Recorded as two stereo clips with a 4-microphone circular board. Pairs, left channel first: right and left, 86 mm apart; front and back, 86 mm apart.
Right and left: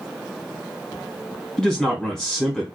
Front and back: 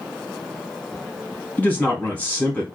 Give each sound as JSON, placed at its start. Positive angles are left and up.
{"t": 1.6, "sound": "a man speaking", "azimuth_deg": -20, "distance_m": 1.2}